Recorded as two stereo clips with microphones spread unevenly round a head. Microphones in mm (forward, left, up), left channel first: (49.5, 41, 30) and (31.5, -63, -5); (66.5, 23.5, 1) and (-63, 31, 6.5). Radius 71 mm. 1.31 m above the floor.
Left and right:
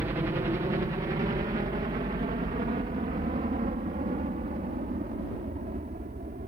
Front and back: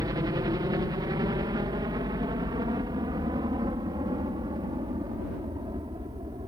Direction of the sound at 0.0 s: 135° right.